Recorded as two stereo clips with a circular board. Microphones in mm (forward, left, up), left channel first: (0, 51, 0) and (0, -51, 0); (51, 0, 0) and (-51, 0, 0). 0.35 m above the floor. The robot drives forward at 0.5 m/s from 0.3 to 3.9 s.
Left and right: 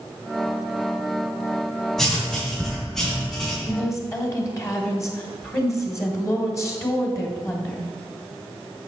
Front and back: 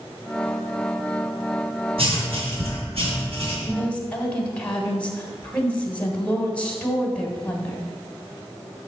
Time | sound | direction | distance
2.0 | writing | 175° left | 2.5 m
3.7 | a woman speaking | 60° left | 1.6 m